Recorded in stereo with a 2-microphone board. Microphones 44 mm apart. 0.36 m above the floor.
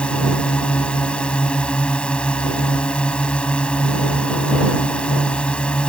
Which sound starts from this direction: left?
A drone, at 0.0 s.